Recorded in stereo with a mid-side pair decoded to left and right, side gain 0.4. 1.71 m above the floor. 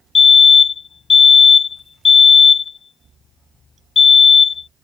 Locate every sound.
0.1 s a fire alarm: 50° left